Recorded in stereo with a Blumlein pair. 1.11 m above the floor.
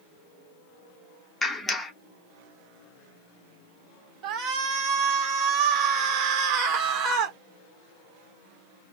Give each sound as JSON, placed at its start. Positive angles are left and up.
{"t": 1.4, "sound": "a clap", "azimuth_deg": 5, "distance_m": 1.0}
{"t": 4.2, "sound": "a shout", "azimuth_deg": -30, "distance_m": 1.4}